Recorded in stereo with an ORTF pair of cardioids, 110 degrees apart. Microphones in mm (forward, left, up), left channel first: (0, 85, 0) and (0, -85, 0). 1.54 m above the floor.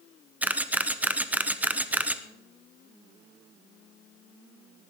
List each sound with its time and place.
0.4 s a camera shutter: 10° right, 0.9 m